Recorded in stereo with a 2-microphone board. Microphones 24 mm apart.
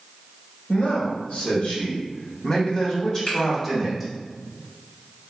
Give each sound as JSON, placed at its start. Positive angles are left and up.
{"t": 0.7, "sound": "a man speaking", "side_deg": 65, "distance_m": 2.0}
{"t": 3.3, "sound": "a finger snap", "side_deg": 65, "distance_m": 2.0}